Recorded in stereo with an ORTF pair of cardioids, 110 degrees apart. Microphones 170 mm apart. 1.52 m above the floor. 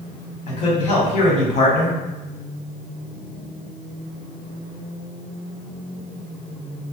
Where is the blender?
I don't hear a blender.